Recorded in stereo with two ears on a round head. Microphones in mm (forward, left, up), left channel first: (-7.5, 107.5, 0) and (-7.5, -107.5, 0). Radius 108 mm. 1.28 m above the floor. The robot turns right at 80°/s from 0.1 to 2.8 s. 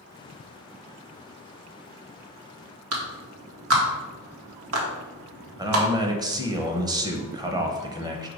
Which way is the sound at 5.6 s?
15° right (ahead or behind).